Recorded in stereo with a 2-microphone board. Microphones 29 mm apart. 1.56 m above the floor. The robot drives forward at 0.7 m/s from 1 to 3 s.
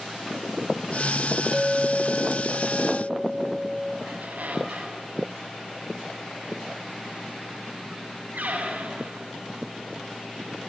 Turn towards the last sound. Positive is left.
turn(degrees=-75)  # may be behind; listen again after turning